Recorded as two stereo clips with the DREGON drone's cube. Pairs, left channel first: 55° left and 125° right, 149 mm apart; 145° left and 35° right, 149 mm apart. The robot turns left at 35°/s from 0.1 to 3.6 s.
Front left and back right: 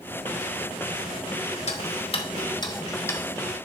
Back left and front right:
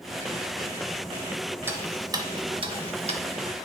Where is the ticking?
40° left, 0.8 m; by 3.2 s 15° right, 0.8 m.